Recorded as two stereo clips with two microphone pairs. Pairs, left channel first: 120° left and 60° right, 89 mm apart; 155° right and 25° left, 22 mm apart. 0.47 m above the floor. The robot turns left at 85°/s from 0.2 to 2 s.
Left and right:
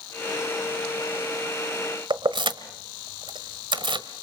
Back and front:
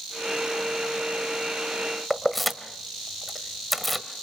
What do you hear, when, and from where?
2.1 s keys jangling: 70° right, 1.4 m